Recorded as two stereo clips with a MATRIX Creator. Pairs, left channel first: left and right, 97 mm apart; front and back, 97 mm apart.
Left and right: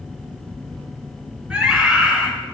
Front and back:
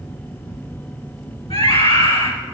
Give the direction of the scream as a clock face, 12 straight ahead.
12 o'clock.